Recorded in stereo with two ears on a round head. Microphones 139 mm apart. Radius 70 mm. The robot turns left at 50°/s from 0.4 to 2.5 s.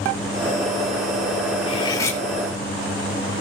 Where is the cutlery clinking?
35° left (ahead or behind), 1.6 m; by 2.2 s 10° left (ahead or behind), 1.6 m.